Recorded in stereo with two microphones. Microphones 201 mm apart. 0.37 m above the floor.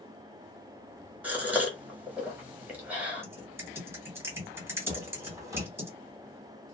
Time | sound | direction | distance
1.2 | a gasp | 10° right (ahead or behind) | 1.1 m
3.2 | typing on a keyboard | 10° right (ahead or behind) | 1.3 m
4.9 | footsteps | 15° right (ahead or behind) | 0.9 m